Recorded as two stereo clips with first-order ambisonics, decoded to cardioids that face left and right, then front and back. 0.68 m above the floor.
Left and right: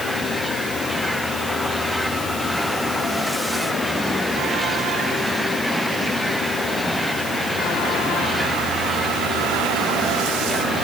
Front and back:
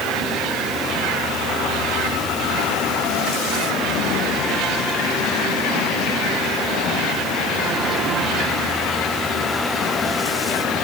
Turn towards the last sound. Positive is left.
No sound to turn to.